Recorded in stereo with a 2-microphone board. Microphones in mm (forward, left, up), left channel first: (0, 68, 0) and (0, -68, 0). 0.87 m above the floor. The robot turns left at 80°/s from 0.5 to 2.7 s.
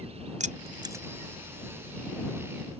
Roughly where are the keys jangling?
Right.